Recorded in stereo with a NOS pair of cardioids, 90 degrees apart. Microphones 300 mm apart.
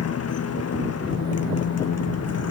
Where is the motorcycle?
55° left.